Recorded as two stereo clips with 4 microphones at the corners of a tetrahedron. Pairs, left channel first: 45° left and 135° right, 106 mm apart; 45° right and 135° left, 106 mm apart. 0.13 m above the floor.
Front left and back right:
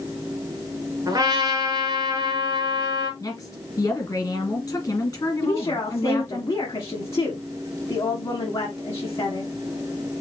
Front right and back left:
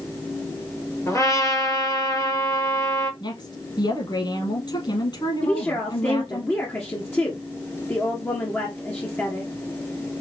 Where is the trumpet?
95° right, 2.5 m.